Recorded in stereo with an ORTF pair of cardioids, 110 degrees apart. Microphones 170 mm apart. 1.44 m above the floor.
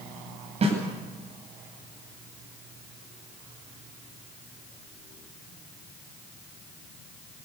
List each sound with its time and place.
0.6 s a snare drum: 40° right, 9.5 m